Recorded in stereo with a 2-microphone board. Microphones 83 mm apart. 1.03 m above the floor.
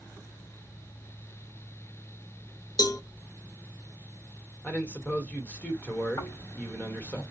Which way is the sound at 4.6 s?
15° left (ahead or behind).